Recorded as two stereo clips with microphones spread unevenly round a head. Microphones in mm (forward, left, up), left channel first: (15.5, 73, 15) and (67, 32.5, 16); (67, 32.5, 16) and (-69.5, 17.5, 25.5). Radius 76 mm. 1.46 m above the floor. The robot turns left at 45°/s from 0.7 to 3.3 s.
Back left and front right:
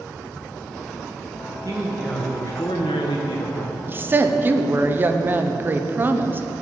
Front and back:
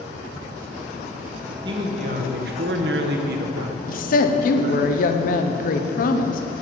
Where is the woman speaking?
20° left, 0.8 m.